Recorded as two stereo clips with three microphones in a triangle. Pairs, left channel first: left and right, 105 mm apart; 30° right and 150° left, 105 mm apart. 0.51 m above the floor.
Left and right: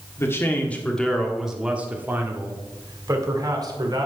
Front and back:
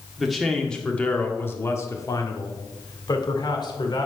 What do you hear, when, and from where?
0.2 s a man speaking: 65° left, 1.3 m; by 4.1 s 60° right, 2 m